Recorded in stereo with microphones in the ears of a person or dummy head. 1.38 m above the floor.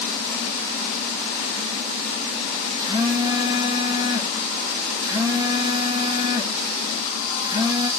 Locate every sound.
2.8 s a phone buzzing: 20° right (ahead or behind), 0.7 m